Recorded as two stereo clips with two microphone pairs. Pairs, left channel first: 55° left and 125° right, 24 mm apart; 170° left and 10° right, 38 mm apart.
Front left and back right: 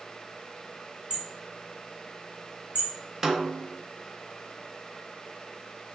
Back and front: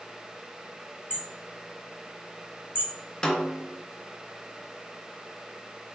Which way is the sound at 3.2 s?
160° right.